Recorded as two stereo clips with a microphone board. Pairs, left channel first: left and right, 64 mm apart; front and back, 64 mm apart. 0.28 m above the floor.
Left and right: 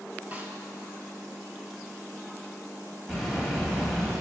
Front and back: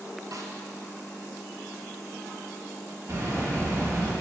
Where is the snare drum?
155° right, 1.0 m.